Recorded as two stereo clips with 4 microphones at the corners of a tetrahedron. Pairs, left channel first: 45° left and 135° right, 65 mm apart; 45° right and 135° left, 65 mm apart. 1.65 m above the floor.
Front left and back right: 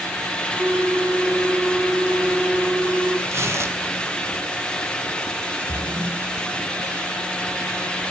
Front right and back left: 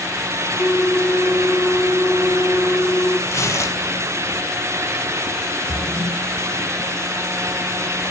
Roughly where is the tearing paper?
Right.